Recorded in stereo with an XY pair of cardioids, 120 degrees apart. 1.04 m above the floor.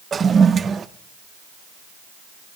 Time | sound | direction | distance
0.1 | a toilet flushing | 35° right | 0.6 m